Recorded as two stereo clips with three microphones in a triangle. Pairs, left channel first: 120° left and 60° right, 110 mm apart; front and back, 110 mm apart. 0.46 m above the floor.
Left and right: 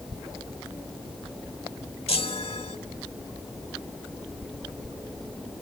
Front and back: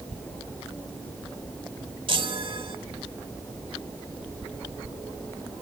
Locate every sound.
2.1 s a chime: 145° left, 1.1 m